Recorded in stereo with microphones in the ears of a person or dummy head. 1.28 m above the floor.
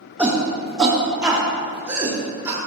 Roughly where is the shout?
Centre.